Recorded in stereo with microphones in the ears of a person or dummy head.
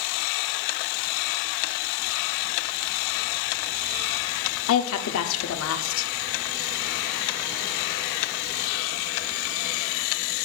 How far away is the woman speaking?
About 0.6 m.